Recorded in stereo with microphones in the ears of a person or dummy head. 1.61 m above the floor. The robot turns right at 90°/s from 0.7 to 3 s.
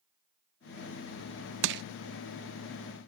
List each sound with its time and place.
1.6 s crushing: 70° right (ahead or behind); by 1.8 s 55° right (ahead or behind)